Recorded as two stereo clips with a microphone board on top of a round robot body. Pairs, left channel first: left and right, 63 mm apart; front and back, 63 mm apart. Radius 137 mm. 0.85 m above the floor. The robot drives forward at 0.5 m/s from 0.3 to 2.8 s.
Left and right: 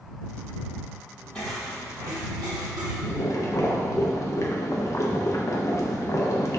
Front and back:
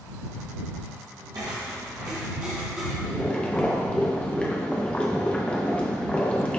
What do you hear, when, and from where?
1.4 s footsteps: 165° left, 1.3 m; by 2.9 s 95° right, 1.8 m
3.0 s boiling: 70° left, 1.3 m